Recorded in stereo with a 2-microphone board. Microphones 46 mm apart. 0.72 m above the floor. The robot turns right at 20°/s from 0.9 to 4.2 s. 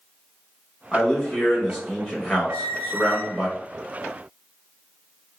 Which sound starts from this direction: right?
A squeak, at 2.5 s.